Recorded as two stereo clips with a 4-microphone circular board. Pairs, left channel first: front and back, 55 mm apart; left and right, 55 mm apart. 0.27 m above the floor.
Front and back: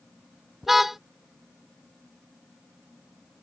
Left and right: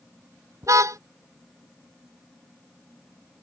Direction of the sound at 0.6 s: 95° right.